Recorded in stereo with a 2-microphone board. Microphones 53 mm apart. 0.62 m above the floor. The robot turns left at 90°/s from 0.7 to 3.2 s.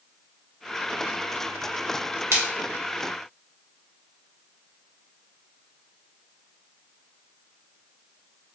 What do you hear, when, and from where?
2.3 s a splash: 50° right (ahead or behind), 1.2 m; by 2.4 s 60° right (ahead or behind), 1.2 m